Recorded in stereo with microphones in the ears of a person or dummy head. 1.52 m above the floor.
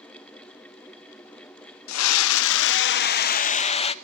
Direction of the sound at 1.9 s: 85° left.